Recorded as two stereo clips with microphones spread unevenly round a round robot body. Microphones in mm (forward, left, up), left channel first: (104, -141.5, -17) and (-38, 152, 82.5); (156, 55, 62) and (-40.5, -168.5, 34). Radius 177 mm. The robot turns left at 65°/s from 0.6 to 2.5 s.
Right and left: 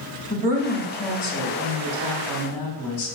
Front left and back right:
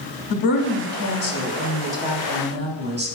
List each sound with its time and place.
0.3 s a woman speaking: 45° left, 3 m; by 3.1 s 80° right, 3 m